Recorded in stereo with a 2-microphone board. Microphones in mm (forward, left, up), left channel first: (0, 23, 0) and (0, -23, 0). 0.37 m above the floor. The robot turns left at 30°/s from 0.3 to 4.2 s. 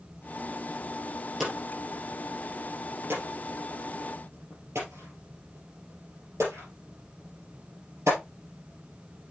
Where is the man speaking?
I don't hear a man speaking.